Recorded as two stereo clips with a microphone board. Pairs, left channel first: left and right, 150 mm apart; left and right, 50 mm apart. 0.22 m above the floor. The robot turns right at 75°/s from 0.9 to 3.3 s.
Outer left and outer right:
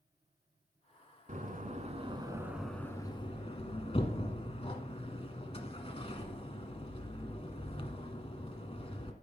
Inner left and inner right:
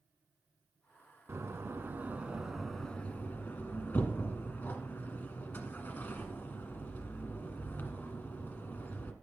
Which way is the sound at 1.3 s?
60° right (ahead or behind).